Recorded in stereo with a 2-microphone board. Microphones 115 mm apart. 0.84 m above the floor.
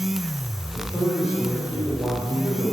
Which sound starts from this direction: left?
A man speaking, at 0.7 s.